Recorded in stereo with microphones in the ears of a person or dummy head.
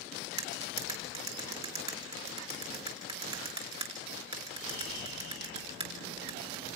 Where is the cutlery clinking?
25° right (ahead or behind), 5.5 m.